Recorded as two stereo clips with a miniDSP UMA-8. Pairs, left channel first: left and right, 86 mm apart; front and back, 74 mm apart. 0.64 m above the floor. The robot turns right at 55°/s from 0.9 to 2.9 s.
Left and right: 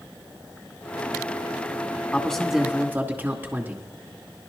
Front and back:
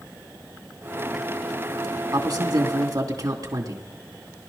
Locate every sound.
2.1 s a man speaking: 160° left, 2.5 m; by 3.9 s 155° right, 2.5 m